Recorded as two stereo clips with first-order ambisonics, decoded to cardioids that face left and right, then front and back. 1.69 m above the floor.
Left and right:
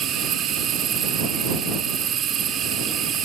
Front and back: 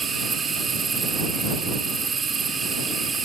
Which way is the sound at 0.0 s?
120° right.